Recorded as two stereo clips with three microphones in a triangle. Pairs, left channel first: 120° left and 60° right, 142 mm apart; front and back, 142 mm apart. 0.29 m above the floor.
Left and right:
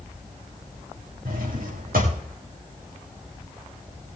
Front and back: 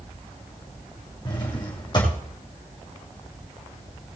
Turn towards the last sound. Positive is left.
turn(degrees=-60)